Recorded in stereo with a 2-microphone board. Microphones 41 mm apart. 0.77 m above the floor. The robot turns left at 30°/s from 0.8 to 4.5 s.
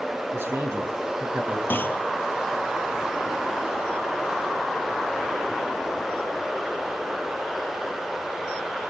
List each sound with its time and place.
0.3 s a man speaking: 80° right, 8 m; by 1.6 s 55° right (ahead or behind), 8 m
1.7 s a clunk: 55° left (ahead or behind), 1.9 m; by 2.0 s 50° left (ahead or behind), 1.9 m